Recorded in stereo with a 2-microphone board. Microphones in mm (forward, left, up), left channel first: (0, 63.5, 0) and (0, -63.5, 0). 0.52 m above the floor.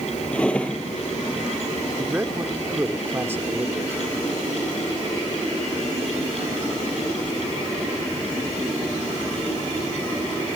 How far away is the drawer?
About 3 m.